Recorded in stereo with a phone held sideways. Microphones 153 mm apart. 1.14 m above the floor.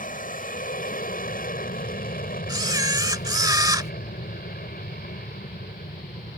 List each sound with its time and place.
0.0 s an aircraft: 65° left (ahead or behind); by 6.4 s 75° left (ahead or behind)
2.5 s a camera shutter: 25° right (ahead or behind)